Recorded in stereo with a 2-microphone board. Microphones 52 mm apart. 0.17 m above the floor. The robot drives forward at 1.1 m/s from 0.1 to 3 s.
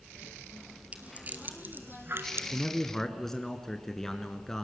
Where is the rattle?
25° right (ahead or behind), 2.5 m; by 2.4 s 50° right (ahead or behind), 1.5 m.